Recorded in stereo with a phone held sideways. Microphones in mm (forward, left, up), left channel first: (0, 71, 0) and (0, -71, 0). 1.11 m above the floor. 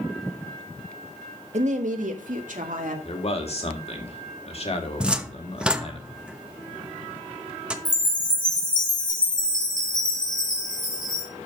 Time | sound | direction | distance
1.5 | a woman speaking | 60° right (ahead or behind) | 1.4 m
3.0 | a man speaking | 50° left (ahead or behind) | 2 m
5.0 | a cupboard door | 5° right (ahead or behind) | 0.9 m
7.8 | a chime | 85° left | 4 m